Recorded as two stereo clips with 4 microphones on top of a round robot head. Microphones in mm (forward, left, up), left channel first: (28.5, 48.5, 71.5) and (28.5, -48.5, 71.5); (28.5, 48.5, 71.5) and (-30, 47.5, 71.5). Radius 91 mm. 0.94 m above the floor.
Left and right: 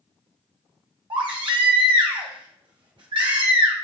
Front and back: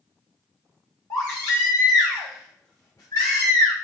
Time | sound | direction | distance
1.1 | a baby crying | 55° right | 1.4 m